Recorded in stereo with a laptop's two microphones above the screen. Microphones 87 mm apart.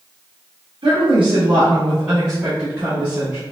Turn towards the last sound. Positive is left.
turn(degrees=-35)  # may be behind; listen again after turning